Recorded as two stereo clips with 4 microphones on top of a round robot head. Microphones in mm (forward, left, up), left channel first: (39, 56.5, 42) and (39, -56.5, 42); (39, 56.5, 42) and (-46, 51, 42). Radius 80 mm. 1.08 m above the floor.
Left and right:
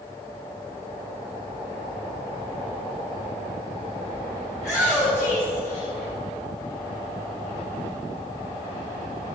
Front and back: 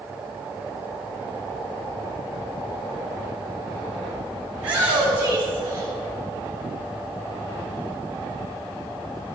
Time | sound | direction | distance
4.5 | a shout | straight behind | 2.5 m